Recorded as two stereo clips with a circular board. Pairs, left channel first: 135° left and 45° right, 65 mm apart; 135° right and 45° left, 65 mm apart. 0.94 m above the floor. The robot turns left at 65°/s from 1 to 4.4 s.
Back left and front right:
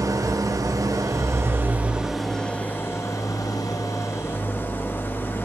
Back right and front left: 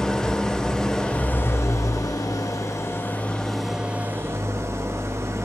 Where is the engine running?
55° right, 1.1 m; by 5.5 s 85° left, 1.1 m.